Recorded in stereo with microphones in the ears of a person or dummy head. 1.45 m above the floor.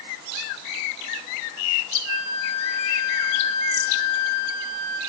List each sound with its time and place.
2.0 s a flute: 80° left, 5.5 m